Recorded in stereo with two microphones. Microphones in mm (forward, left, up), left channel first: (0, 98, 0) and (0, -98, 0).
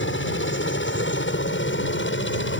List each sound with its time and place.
0.0 s a helicopter: 75° left (ahead or behind)